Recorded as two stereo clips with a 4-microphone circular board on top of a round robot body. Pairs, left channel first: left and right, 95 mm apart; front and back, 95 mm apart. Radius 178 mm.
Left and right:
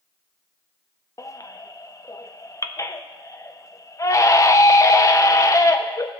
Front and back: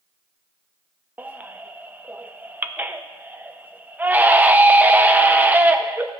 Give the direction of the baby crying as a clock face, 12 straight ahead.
8 o'clock.